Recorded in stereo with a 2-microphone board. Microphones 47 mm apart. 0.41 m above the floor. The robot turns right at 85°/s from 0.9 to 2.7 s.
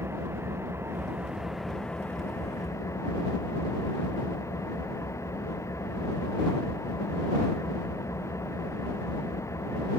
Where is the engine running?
60° right; by 10.0 s 90° left.